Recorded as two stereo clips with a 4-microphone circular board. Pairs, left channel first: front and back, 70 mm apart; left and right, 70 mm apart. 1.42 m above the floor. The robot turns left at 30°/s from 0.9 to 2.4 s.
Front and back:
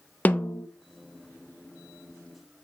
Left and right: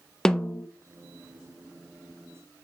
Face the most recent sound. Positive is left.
turn(degrees=-25)